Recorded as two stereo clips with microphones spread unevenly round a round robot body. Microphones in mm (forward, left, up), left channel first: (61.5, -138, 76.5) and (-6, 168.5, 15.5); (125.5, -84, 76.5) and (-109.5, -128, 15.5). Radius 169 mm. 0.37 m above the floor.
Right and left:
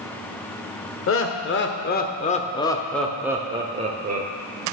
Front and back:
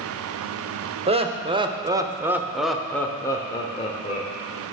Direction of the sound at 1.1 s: 125° right.